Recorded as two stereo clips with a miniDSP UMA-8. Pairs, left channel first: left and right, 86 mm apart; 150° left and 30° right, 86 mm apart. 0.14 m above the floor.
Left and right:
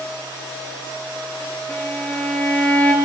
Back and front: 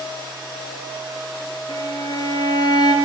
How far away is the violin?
About 3 m.